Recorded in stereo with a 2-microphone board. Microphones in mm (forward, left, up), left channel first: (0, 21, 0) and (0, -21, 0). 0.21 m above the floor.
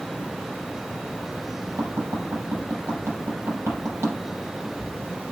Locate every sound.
1.8 s tapping: 70° right (ahead or behind), 6.5 m